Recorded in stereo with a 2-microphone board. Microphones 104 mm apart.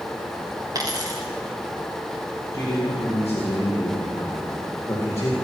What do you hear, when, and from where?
0.8 s a dropped coin: 35° right (ahead or behind), 3 m
2.5 s a man speaking: 30° left (ahead or behind), 5.5 m